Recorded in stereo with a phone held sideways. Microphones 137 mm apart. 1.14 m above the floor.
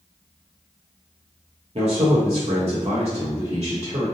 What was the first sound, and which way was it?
A man speaking, 50° right (ahead or behind).